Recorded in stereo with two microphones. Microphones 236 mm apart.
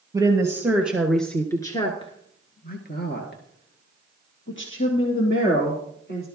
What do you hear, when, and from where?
0.1 s a woman speaking: 15° right (ahead or behind), 2 m; by 6.3 s 55° left (ahead or behind), 3.5 m